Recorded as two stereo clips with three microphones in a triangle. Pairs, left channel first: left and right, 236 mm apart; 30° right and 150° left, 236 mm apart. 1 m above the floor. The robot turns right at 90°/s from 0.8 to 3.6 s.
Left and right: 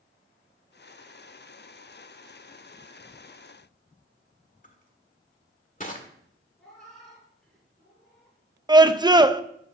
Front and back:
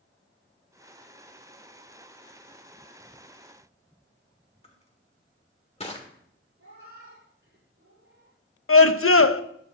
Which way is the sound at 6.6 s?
Straight behind.